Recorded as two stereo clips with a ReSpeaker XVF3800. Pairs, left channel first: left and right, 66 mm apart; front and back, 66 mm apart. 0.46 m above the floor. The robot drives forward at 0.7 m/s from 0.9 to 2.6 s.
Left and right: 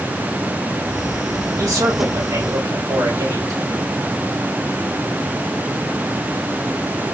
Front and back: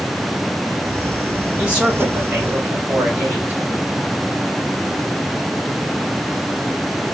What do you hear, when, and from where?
1.6 s a man speaking: 110° right, 3 m; by 3.6 s 120° right, 3 m